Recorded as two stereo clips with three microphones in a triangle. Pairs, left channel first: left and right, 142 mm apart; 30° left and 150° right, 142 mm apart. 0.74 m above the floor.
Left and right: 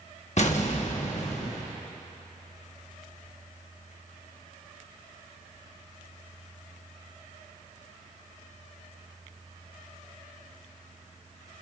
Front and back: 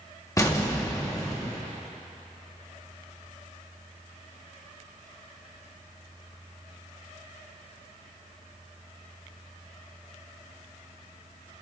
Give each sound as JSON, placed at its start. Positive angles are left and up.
{"t": 0.4, "sound": "an explosion", "azimuth_deg": 90, "distance_m": 1.1}